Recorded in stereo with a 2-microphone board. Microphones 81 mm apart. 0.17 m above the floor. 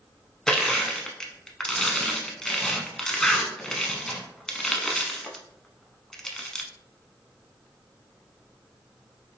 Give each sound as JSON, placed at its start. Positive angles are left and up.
{"t": 0.5, "sound": "crushing", "side_deg": 5, "distance_m": 0.6}